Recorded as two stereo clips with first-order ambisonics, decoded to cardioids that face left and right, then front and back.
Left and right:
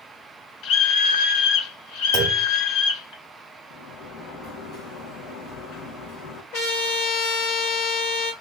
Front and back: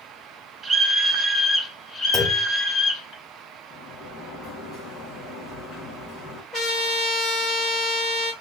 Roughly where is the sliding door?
Ahead left.